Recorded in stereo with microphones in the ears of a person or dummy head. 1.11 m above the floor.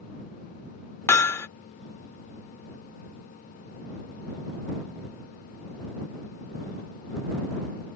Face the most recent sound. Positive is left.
turn(degrees=15)  # may be behind; listen again after turning